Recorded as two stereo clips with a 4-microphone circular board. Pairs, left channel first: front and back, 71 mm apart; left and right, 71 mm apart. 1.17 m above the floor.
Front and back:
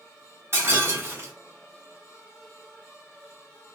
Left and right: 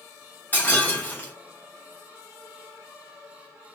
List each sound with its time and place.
0.5 s breaking glass: 150° left, 1.4 m